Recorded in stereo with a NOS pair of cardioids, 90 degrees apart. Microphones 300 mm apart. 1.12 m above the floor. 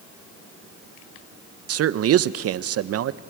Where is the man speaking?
55° right, 0.7 m.